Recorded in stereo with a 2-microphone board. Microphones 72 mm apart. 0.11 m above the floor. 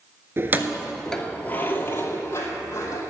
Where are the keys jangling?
35° right (ahead or behind), 1.0 m; by 3.0 s 45° left (ahead or behind), 3 m.